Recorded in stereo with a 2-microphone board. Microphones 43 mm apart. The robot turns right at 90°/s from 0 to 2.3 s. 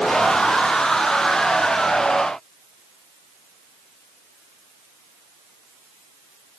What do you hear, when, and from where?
Only background noise.